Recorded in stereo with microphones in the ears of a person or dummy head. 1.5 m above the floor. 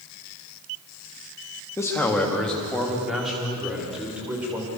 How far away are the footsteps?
I don't hear footsteps.